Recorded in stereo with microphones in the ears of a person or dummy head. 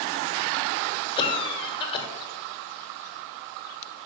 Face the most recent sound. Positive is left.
turn(degrees=25)  # may be behind; listen again after turning